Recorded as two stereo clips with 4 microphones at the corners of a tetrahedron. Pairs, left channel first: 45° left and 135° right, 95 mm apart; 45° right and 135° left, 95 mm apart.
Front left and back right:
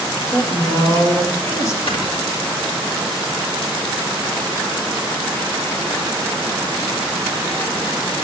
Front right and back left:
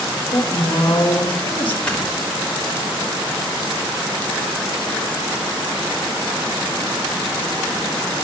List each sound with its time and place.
0.3 s a woman speaking: 10° right, 2.5 m
1.9 s snoring: 35° left, 2.5 m